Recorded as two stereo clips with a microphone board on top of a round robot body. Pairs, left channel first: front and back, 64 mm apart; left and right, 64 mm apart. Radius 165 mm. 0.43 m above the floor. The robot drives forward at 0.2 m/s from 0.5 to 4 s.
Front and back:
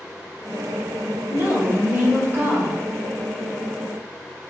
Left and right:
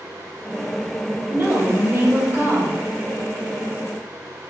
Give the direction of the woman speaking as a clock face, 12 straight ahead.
4 o'clock.